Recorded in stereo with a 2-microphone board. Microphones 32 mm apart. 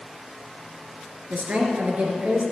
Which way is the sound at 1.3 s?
45° right (ahead or behind).